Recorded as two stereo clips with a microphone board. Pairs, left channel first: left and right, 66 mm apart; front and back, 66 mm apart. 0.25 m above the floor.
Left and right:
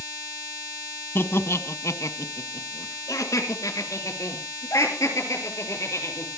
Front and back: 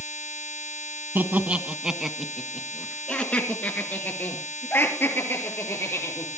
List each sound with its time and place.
1.1 s laughter: 130° left, 1.7 m; by 6.3 s 50° left, 5.5 m